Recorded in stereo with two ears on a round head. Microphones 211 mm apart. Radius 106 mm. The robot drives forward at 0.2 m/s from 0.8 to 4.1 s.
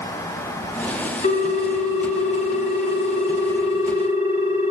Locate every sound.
1.2 s a ringtone: 35° left (ahead or behind), 1.8 m; by 4.7 s 25° left (ahead or behind), 2 m